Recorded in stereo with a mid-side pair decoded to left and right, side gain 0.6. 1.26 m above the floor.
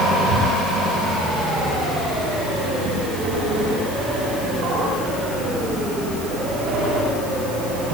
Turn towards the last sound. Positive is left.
No sound to turn to.